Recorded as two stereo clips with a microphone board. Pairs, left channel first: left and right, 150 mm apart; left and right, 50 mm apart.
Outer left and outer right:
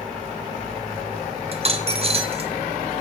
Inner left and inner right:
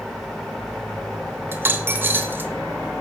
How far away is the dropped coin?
About 0.7 m.